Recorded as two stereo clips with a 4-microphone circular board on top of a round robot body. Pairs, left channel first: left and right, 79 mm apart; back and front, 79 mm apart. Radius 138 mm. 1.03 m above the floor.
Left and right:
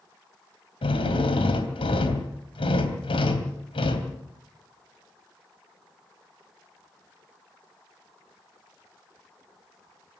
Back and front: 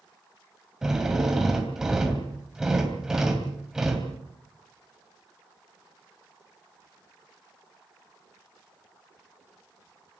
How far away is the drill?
About 3 m.